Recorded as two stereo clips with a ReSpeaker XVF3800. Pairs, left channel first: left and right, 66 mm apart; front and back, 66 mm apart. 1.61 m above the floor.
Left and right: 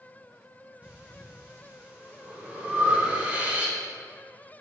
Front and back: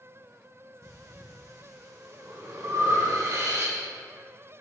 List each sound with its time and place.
0.8 s breathing: 155° right, 1.1 m